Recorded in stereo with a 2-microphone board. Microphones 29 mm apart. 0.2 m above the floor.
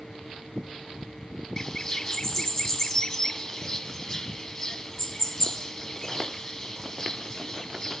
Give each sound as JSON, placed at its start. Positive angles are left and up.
{"t": 1.6, "sound": "a bird", "side_deg": 20, "distance_m": 0.6}